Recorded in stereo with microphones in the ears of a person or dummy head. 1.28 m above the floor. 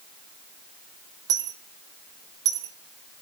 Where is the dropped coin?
15° right (ahead or behind), 0.8 m.